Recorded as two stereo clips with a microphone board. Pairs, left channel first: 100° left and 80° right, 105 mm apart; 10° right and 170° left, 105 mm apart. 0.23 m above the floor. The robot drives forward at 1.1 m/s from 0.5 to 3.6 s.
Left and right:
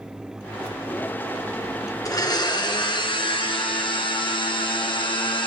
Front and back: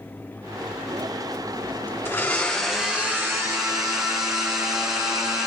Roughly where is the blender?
Ahead left.